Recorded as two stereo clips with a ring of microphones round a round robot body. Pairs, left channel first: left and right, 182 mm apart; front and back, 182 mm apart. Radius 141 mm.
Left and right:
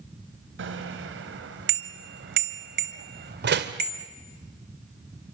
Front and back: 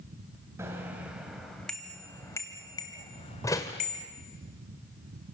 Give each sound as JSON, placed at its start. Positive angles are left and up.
{"t": 0.6, "sound": "a bicycle bell", "azimuth_deg": -100, "distance_m": 2.5}
{"t": 3.4, "sound": "a door slam", "azimuth_deg": -75, "distance_m": 1.7}